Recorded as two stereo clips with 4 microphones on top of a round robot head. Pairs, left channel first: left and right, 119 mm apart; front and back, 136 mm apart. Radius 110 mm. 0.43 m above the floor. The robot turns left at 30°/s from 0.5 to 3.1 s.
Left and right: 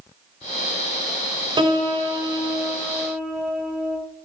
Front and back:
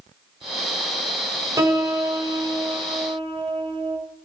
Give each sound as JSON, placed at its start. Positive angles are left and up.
{"t": 1.6, "sound": "a piano", "azimuth_deg": -120, "distance_m": 1.2}